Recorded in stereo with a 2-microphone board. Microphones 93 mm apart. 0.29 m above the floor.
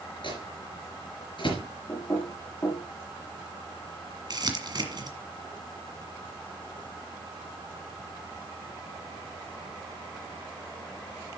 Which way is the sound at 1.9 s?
30° left (ahead or behind).